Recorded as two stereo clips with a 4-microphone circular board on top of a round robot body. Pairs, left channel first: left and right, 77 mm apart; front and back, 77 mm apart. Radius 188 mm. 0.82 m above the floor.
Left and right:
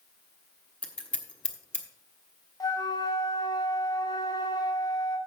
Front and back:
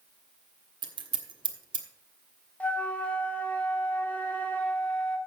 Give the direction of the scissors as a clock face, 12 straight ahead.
6 o'clock.